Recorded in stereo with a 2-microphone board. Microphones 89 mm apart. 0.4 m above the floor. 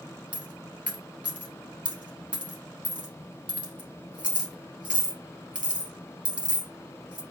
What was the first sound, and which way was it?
A dropped coin, 15° right (ahead or behind).